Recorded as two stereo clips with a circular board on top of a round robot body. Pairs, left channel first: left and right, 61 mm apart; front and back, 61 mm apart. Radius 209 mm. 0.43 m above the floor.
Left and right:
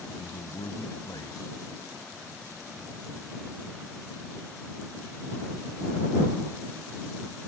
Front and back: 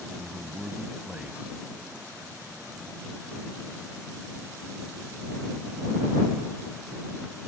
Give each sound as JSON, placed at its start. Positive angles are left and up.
{"t": 0.1, "sound": "a man speaking", "azimuth_deg": 110}